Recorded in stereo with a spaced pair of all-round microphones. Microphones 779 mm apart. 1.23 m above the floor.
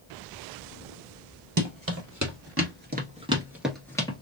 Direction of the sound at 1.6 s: 25° right (ahead or behind).